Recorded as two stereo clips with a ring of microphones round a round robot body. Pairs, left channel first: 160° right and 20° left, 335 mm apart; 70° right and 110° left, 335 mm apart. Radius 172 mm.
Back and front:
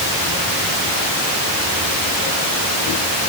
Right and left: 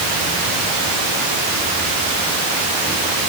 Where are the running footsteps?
No running footsteps in this recording.